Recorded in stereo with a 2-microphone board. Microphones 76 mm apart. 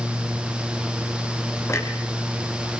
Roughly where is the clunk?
Left.